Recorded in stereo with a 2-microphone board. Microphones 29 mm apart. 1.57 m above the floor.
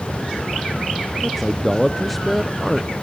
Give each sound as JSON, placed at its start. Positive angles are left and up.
{"t": 1.2, "sound": "a man speaking", "side_deg": 5, "distance_m": 0.6}